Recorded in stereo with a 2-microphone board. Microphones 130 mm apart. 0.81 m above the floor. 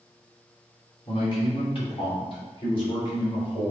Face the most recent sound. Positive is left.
turn(degrees=45)  # may be behind; listen again after turning